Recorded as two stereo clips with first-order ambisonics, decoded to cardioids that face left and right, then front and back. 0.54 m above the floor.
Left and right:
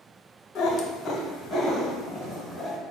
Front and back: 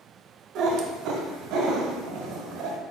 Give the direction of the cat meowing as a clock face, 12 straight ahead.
7 o'clock.